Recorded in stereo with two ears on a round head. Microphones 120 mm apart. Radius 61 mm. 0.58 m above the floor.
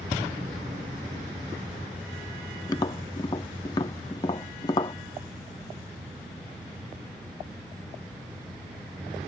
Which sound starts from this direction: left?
Tapping, at 2.7 s.